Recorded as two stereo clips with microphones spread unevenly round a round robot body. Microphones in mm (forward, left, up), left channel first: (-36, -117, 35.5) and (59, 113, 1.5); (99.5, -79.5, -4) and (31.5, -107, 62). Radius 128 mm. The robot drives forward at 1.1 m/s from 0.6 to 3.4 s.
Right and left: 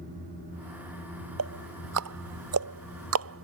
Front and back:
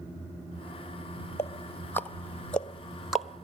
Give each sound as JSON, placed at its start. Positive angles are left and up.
{"t": 1.4, "sound": "ticking", "azimuth_deg": 45}